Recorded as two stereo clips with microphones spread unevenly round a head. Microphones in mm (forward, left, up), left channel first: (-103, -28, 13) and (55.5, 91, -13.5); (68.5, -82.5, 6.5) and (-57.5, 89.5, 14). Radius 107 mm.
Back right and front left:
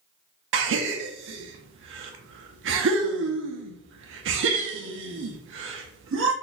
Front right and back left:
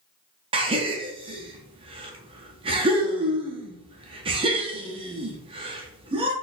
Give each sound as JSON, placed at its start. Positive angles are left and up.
{"t": 0.5, "sound": "a gasp", "azimuth_deg": 60, "distance_m": 0.6}